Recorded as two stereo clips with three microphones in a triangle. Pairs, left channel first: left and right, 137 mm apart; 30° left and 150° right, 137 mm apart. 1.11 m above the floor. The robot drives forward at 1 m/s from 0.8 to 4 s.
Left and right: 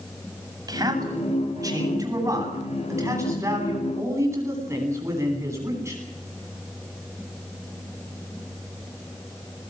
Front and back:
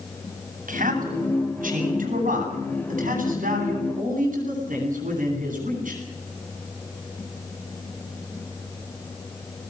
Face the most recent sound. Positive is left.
turn(degrees=-160)